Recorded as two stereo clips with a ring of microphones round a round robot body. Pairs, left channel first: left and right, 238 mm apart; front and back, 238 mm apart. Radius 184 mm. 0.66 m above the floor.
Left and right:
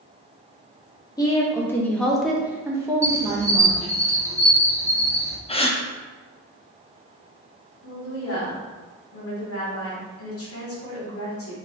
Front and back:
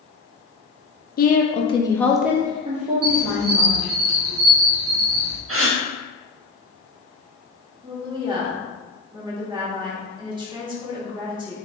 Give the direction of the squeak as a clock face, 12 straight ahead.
6 o'clock.